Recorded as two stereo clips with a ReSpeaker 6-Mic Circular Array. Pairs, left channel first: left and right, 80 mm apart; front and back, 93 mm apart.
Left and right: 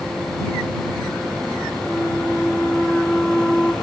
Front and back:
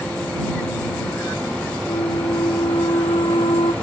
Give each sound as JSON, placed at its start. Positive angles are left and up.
{"t": 1.9, "sound": "a flute", "azimuth_deg": 10}